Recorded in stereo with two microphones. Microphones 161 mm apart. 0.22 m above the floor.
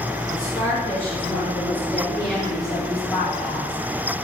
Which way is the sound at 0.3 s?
20° left (ahead or behind).